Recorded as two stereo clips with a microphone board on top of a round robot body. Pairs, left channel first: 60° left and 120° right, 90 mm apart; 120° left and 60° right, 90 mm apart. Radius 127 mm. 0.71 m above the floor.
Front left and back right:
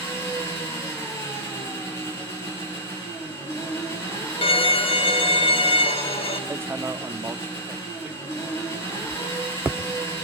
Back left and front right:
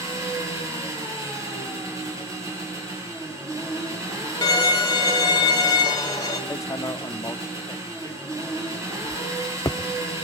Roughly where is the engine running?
Ahead.